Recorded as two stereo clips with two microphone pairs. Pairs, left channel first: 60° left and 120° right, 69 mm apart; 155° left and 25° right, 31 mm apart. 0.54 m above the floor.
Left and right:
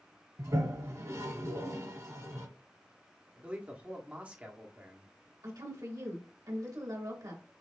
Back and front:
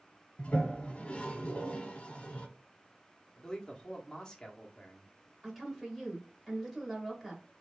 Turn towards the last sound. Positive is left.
turn(degrees=-115)